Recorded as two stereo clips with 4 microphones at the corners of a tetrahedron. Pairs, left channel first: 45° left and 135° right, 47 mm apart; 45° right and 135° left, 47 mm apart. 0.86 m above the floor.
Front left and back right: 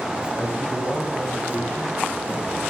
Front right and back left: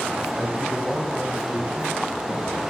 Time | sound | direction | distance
0.4 | a man speaking | 65° left | 5.5 m